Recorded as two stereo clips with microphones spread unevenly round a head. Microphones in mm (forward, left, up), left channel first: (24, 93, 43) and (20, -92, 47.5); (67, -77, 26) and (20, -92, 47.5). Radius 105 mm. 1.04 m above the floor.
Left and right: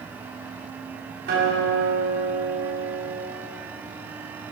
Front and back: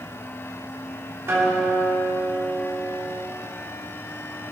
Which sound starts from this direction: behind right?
A guitar, at 1.3 s.